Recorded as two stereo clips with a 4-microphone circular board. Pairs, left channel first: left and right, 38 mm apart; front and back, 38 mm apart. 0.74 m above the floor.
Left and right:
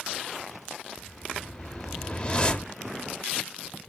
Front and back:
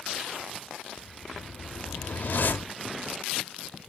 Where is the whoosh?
30° left, 1.0 m.